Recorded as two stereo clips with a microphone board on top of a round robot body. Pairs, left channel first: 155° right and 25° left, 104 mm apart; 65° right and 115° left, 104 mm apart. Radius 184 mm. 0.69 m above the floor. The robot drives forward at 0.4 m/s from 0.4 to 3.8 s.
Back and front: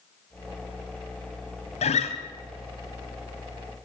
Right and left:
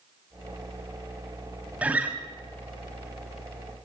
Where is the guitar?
170° right, 2 m.